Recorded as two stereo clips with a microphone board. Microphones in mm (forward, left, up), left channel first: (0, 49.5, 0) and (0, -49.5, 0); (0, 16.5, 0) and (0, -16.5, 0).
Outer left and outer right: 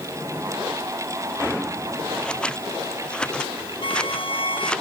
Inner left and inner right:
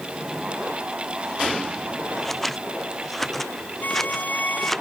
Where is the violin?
60° left (ahead or behind).